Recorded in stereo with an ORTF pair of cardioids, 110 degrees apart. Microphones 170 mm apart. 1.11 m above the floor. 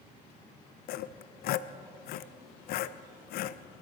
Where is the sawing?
65° left, 0.5 m.